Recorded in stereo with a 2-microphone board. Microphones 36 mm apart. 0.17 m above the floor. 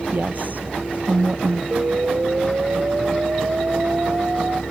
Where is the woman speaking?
50° right (ahead or behind).